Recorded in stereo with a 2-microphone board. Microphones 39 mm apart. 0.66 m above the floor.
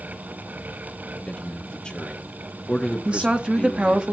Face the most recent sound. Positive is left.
turn(degrees=-35)  # may be behind; listen again after turning